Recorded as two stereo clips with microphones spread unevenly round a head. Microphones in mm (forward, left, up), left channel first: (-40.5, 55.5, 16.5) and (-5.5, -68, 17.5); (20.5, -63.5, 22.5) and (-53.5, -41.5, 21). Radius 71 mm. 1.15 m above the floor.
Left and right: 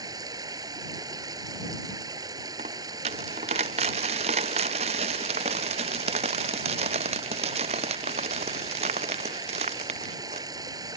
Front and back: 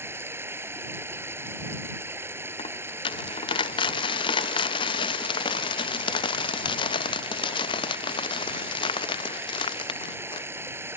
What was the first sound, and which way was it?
Running water, 135° right.